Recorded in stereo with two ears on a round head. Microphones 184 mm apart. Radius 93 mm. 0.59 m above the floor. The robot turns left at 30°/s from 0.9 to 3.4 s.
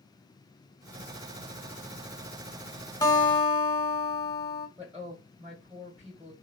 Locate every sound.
3.0 s a guitar: 20° left (ahead or behind), 0.8 m; by 4.7 s 30° left (ahead or behind), 0.8 m
4.8 s a woman speaking: 5° right (ahead or behind), 2 m